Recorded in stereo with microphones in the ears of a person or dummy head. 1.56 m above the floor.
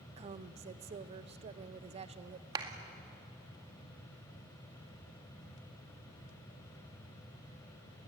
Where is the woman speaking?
35° right (ahead or behind), 0.8 m.